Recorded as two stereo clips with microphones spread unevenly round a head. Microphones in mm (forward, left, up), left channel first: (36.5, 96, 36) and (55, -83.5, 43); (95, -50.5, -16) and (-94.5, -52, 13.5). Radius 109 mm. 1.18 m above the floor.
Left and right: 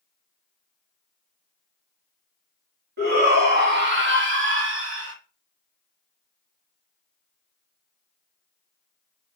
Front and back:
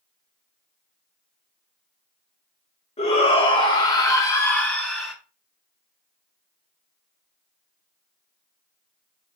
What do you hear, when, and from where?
3.0 s a shout: 55° right, 3.5 m; by 5.2 s 90° right, 3 m